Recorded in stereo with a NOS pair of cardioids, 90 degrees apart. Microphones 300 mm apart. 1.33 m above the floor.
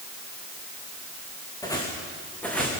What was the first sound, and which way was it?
Footsteps, 10° left.